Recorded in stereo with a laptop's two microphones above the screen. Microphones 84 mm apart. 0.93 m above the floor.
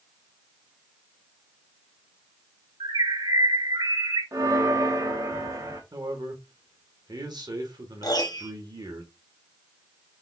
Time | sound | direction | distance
2.8 | a bird | 80° right | 3.5 m
4.3 | a bell | 40° right (ahead or behind) | 0.8 m
5.9 | a man speaking | 55° right (ahead or behind) | 1.5 m
8.0 | a piano | 50° left (ahead or behind) | 0.9 m